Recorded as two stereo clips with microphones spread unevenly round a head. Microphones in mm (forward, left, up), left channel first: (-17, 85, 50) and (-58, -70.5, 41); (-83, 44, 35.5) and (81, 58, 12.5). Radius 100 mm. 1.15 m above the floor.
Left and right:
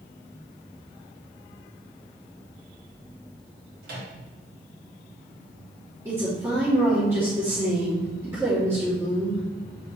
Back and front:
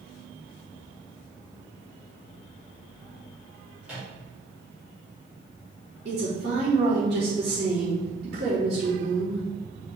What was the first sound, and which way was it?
A microwave, 80° right.